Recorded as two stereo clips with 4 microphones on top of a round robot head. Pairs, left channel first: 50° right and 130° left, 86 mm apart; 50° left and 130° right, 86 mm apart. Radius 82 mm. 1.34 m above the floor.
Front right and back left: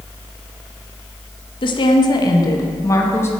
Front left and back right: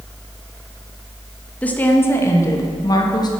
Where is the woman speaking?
25° right, 1.9 m; by 3.3 s 10° left, 2.5 m.